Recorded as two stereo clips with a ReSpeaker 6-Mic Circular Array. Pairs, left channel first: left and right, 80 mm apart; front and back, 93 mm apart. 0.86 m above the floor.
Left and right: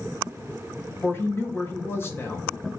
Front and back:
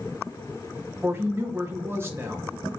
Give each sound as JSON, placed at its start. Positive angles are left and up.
{"t": 1.0, "sound": "a woman speaking", "azimuth_deg": 130, "distance_m": 1.1}